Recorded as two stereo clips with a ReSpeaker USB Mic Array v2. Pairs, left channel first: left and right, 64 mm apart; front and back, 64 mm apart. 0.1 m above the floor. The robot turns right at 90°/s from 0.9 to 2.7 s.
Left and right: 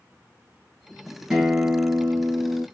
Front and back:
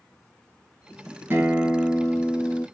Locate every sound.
1.3 s a guitar: 170° right, 1.8 m; by 2.6 s 45° right, 1.8 m